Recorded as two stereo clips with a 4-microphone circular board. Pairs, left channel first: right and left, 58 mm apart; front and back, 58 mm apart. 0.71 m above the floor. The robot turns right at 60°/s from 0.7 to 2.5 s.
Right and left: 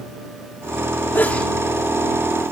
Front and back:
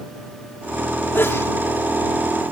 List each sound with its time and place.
1.1 s a sneeze: 45° right; by 1.5 s 20° right